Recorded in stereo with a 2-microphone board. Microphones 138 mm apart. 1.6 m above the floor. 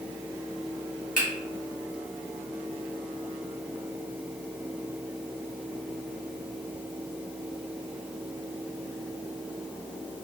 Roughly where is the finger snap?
Left.